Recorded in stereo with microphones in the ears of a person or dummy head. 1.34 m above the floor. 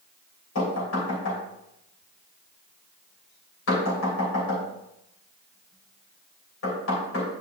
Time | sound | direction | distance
0.6 | knocking | 80° left | 3.5 m